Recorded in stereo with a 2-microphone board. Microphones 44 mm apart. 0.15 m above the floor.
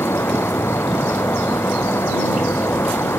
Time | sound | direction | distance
0.0 | an insect | 75° left (ahead or behind) | ?